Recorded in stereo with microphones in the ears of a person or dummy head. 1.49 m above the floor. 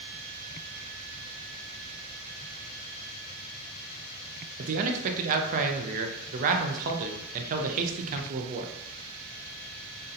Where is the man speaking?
45° right (ahead or behind), 0.6 m.